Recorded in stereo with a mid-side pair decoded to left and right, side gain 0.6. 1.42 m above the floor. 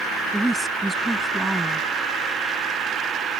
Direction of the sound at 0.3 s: 5° right.